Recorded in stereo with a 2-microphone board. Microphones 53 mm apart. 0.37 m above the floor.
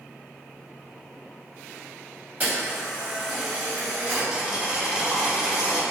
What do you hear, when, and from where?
2.4 s a camera shutter: 20° right (ahead or behind), 2.0 m
4.3 s boiling: 15° right (ahead or behind), 0.8 m